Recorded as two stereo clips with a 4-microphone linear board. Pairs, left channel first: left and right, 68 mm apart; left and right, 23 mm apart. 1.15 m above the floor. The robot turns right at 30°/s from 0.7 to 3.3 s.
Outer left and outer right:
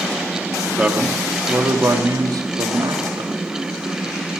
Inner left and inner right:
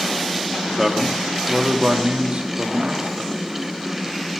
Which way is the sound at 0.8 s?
165° right.